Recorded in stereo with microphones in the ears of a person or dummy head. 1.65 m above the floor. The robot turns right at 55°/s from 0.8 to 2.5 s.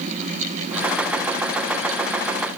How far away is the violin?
I don't hear a violin.